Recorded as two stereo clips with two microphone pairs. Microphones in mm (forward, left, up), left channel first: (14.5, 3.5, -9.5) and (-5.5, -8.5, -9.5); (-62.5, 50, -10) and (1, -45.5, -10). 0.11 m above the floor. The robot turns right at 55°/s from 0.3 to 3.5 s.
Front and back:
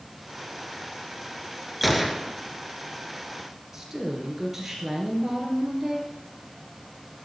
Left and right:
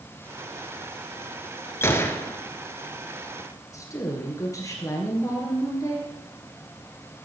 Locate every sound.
1.8 s a gunshot: 125° left, 0.7 m; by 2.4 s 155° left, 0.7 m
3.7 s a woman speaking: 145° left, 1.9 m